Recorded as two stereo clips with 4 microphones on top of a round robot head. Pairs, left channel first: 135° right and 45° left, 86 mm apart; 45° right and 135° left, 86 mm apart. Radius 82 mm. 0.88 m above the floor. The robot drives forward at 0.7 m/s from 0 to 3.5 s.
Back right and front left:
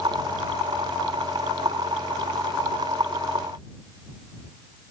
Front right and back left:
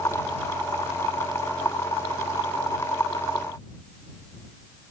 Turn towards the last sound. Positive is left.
No sound to turn to.